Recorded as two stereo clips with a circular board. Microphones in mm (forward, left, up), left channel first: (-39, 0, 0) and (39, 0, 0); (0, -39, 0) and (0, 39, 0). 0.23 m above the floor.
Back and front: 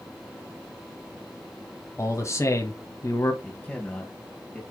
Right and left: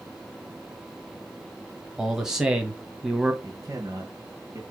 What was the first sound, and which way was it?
A man speaking, 170° left.